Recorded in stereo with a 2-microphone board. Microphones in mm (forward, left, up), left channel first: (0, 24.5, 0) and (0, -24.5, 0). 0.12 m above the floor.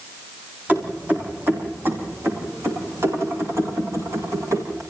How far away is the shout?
No shout in this recording.